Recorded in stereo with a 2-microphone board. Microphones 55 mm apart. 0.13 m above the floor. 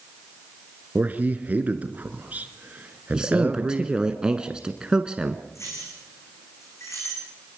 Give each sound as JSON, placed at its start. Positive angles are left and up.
{"t": 0.9, "sound": "a man speaking", "side_deg": -30, "distance_m": 2.0}
{"t": 3.1, "sound": "a man speaking", "side_deg": -15, "distance_m": 1.1}
{"t": 5.5, "sound": "keys jangling", "side_deg": 60, "distance_m": 7.0}